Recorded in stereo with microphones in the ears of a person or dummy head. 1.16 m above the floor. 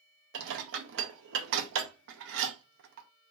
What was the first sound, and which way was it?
Dishes clattering, 60° right (ahead or behind).